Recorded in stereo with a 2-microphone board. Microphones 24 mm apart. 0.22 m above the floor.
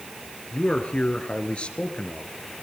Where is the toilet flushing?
I don't hear a toilet flushing.